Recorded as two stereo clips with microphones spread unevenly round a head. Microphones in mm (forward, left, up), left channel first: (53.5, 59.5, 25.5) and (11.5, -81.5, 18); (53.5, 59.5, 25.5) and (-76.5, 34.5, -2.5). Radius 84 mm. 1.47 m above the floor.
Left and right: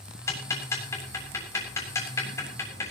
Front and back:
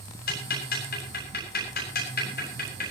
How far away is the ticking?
About 7.5 m.